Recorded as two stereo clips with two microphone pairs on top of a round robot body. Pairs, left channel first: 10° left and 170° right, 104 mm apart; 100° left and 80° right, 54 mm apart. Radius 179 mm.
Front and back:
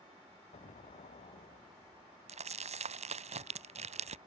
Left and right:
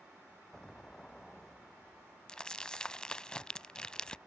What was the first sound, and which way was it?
An explosion, 20° left.